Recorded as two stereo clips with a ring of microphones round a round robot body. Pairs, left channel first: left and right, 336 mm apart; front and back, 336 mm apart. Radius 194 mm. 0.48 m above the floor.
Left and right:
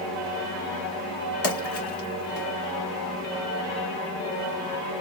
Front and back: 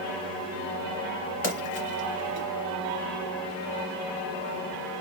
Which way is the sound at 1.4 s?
45° left.